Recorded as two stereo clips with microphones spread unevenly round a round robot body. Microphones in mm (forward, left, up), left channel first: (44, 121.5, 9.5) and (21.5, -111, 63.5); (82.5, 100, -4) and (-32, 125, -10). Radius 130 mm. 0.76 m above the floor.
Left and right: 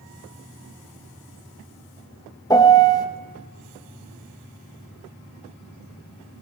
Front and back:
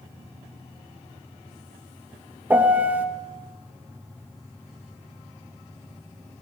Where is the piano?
110° left, 0.9 m.